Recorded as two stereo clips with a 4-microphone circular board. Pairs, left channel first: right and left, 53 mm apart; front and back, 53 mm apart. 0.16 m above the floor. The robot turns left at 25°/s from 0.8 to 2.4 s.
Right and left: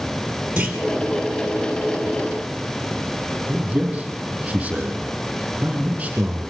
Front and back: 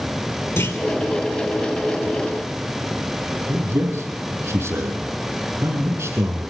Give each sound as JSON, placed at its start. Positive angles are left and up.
{"t": 0.6, "sound": "a clunk", "azimuth_deg": 20, "distance_m": 3.0}
{"t": 3.5, "sound": "a man speaking", "azimuth_deg": 155, "distance_m": 6.5}